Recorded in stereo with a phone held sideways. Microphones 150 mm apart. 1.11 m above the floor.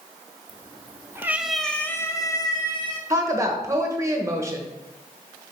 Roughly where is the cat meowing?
Right.